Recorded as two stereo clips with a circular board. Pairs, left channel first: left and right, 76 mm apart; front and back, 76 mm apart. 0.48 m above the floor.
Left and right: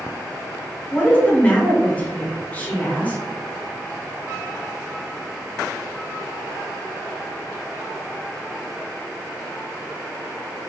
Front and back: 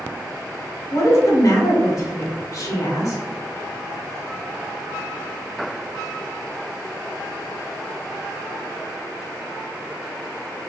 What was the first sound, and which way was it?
A woman speaking, 25° left.